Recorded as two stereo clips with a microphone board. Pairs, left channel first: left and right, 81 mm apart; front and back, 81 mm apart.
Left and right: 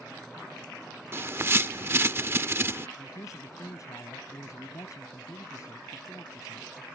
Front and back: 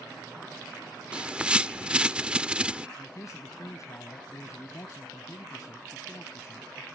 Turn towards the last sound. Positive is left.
turn(degrees=45)